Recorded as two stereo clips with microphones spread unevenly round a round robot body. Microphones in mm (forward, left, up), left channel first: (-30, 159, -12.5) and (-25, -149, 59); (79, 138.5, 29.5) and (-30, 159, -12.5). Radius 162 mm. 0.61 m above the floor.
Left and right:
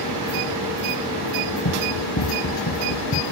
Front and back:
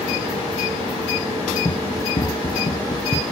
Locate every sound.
1.6 s running footsteps: 45° left; by 3.2 s 35° left